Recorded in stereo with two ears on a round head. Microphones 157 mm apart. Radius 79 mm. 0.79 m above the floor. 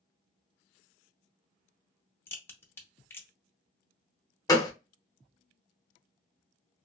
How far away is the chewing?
I don't hear chewing.